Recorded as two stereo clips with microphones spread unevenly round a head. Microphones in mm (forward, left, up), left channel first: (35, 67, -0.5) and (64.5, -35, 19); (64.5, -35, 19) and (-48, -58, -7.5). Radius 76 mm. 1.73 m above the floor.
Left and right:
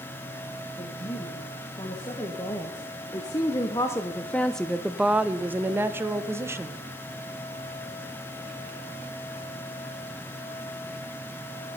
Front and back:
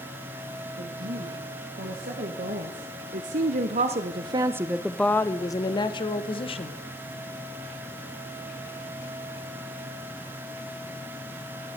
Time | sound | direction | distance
0.8 | a woman speaking | 170° left | 2.5 m